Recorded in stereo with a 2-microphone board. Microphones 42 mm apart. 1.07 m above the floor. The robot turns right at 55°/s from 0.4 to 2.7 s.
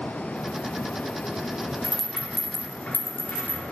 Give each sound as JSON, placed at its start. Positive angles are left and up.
{"t": 1.8, "sound": "a rattle", "side_deg": 0, "distance_m": 0.9}